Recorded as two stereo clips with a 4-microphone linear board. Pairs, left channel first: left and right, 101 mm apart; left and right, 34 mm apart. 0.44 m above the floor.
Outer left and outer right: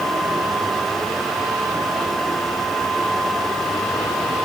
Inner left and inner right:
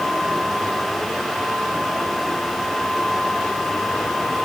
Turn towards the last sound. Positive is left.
No sound to turn to.